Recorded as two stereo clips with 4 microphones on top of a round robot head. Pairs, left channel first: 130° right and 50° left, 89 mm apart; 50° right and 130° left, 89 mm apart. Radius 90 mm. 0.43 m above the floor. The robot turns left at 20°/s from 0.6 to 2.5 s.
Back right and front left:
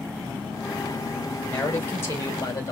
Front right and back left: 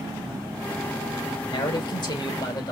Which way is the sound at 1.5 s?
65° right.